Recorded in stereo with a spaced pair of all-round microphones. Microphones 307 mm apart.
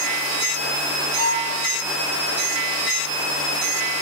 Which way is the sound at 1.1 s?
85° left.